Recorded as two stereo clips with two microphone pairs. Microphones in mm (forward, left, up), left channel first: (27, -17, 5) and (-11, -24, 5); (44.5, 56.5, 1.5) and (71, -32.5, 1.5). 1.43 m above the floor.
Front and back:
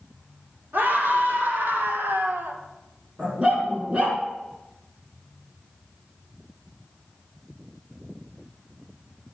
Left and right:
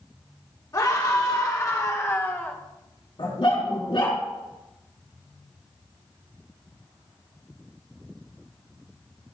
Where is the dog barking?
130° left, 4 m.